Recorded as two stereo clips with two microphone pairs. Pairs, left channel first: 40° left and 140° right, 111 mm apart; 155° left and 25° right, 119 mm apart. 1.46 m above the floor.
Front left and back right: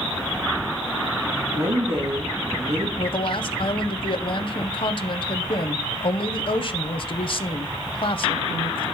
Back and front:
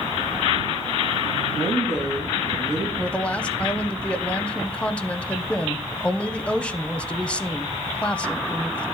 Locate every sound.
1.4 s a woman speaking: 110° right, 2 m
3.0 s a woman speaking: 80° left, 0.8 m